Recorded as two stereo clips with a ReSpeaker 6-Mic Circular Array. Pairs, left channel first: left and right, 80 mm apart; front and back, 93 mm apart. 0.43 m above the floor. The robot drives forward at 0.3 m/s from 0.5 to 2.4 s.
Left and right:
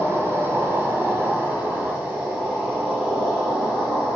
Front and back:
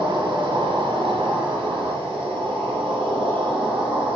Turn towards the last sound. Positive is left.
turn(degrees=-160)